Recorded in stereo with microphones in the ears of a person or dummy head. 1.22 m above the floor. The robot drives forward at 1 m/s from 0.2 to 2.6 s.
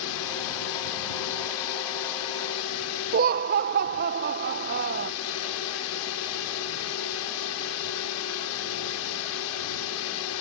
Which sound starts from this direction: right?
Laughter, at 3.1 s.